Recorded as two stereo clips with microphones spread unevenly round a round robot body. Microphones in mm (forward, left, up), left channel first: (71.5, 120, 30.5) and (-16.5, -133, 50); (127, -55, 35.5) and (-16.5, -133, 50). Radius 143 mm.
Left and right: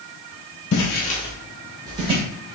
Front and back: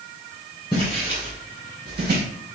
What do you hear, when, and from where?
0.7 s footsteps: 100° left, 0.8 m; by 2.2 s 175° right, 1.4 m